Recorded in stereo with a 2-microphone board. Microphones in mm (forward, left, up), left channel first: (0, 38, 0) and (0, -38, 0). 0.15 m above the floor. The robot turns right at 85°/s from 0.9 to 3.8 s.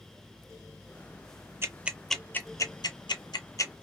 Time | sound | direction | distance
1.6 | ticking | 35° right (ahead or behind) | 0.5 m